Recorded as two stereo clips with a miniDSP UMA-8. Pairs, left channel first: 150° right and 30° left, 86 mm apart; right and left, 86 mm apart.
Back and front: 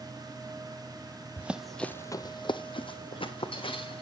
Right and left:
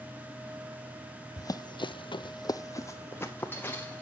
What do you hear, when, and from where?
1.4 s running footsteps: 40° right, 0.8 m; by 4.0 s 160° right, 2 m